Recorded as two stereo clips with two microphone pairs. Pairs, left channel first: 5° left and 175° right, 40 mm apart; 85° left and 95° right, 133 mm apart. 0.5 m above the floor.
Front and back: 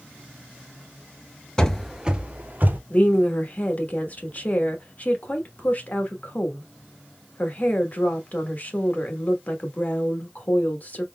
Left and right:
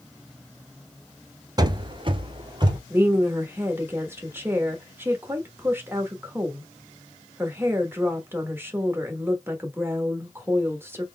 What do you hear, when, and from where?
1.6 s running footsteps: 60° right, 0.5 m; by 2.8 s 145° right, 0.9 m
2.9 s a woman speaking: 25° right, 1.1 m